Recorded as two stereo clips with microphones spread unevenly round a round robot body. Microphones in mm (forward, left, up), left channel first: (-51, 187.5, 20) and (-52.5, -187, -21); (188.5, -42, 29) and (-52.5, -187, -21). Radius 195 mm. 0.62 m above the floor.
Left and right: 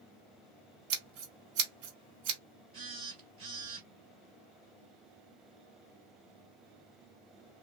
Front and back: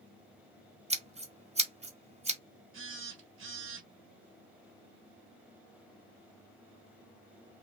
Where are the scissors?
80° right, 1.4 m.